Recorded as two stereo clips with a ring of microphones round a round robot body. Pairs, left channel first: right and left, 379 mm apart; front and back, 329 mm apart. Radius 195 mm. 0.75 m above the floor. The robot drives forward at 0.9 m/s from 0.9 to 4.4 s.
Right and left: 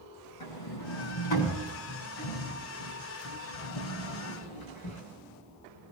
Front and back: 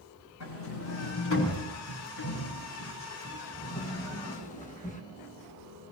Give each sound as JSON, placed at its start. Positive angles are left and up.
{"t": 0.4, "sound": "a sliding door", "azimuth_deg": -55, "distance_m": 6.5}